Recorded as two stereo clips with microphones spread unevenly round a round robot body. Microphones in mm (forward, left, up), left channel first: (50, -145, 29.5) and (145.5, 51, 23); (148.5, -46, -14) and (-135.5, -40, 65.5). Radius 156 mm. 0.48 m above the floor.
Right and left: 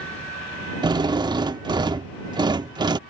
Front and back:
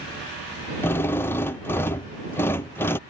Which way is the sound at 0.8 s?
30° left.